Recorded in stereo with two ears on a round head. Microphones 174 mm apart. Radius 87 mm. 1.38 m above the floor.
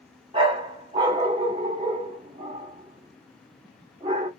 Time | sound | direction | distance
0.3 | a dog barking | 25° right (ahead or behind) | 1.1 m